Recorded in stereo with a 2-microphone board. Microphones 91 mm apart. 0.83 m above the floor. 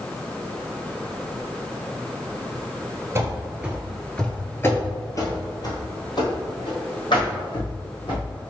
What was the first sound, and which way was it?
Running footsteps, 30° right (ahead or behind).